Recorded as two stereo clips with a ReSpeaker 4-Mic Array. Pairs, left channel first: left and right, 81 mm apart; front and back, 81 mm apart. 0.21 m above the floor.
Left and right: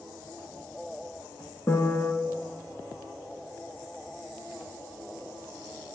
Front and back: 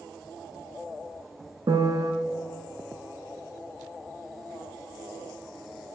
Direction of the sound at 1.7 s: 150° left.